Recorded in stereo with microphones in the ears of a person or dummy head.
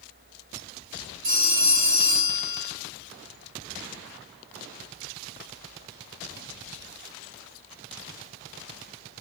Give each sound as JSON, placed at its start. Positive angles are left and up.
{"t": 1.2, "sound": "a phone ringing", "side_deg": -35, "distance_m": 4.0}